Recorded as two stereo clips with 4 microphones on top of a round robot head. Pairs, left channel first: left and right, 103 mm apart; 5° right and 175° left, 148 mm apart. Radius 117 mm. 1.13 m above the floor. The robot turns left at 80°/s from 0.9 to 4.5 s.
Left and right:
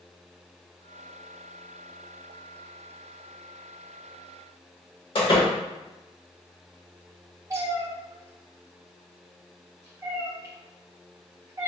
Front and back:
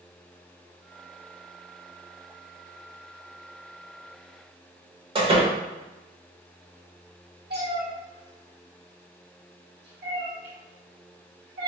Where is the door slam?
120° left, 1.2 m.